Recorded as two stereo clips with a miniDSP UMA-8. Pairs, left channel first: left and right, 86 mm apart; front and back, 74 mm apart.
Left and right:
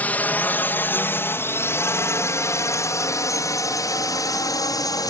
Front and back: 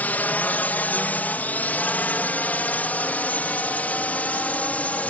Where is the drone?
40° left; by 5.1 s 65° left.